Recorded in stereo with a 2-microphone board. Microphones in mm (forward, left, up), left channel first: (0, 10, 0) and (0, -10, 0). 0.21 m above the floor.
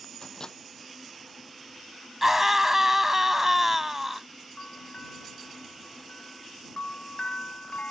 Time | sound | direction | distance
0.2 | a microwave | 40° left (ahead or behind) | ?
2.2 | a scream | 15° right (ahead or behind) | ?
4.6 | a bell | 85° left | ?